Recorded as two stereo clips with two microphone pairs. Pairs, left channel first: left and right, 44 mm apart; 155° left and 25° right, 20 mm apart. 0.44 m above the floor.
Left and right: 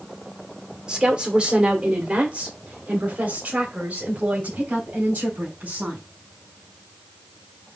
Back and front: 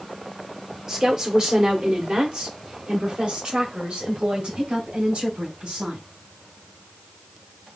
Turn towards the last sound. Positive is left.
turn(degrees=-40)